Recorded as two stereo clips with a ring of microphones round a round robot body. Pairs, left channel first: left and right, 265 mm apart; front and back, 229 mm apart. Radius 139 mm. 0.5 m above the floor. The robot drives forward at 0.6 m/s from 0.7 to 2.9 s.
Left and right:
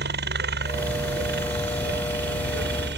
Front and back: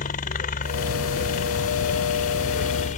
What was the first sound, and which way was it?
A helicopter, 50° right.